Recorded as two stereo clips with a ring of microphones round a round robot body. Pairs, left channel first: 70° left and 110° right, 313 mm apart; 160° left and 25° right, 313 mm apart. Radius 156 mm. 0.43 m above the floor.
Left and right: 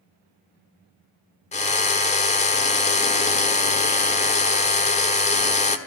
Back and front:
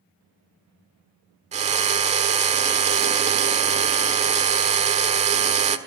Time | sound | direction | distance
1.5 | a drill | 20° left | 1.5 m